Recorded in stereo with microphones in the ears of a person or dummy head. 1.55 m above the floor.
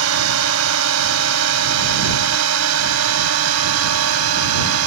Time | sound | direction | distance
0.0 | a drone | 85° right | ?